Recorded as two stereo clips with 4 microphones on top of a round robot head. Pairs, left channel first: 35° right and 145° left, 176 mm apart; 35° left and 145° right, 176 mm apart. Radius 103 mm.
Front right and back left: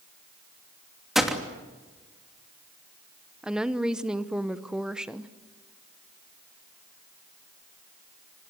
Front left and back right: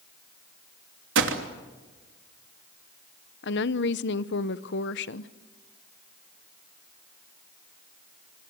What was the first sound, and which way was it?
A gunshot, 125° right.